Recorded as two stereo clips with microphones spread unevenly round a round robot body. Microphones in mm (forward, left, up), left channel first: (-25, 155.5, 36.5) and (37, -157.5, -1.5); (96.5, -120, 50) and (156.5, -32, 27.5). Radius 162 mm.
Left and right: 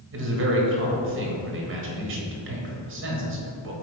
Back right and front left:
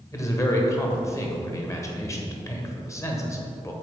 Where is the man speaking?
55° right, 1.3 m.